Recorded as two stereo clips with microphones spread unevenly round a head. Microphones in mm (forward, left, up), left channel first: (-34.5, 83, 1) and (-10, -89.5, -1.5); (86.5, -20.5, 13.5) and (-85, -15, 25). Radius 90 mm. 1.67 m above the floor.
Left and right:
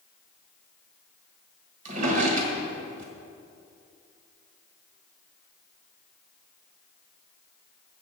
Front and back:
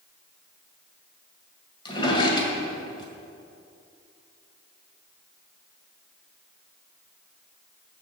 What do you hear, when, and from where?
1.9 s a drawer: 60° right, 1.9 m